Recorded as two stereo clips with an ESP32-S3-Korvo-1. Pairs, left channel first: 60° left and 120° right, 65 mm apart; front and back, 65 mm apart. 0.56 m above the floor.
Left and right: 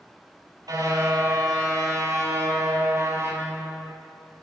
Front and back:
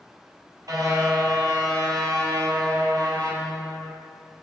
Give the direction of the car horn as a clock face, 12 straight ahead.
5 o'clock.